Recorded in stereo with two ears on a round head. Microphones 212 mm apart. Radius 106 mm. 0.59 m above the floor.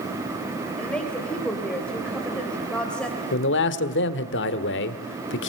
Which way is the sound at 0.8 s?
5° left (ahead or behind).